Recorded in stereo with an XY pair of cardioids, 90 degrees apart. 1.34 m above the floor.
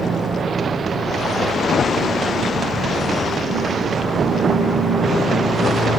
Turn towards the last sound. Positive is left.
turn(degrees=-45)